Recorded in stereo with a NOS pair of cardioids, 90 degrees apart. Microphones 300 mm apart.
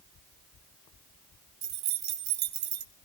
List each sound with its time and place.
1.6 s keys jangling: 65° right, 1.8 m